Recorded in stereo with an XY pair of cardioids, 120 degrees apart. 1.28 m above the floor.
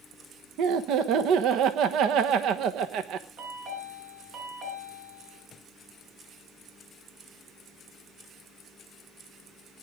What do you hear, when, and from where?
0.6 s laughter: 70° right, 1.0 m
3.4 s a chime: 65° right, 6 m